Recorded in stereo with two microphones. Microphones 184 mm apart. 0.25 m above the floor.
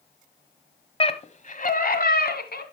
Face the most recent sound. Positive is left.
turn(degrees=60)  # may be behind; listen again after turning